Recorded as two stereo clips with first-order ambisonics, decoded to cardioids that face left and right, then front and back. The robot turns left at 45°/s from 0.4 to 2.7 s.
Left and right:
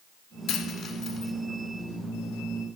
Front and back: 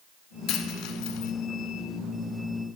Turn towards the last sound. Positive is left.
turn(degrees=-55)